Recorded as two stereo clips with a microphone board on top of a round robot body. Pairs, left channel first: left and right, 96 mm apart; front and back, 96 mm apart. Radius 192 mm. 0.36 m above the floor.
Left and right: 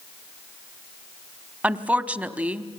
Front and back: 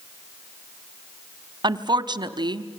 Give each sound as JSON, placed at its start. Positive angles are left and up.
{"t": 1.6, "sound": "a woman speaking", "azimuth_deg": -160, "distance_m": 1.2}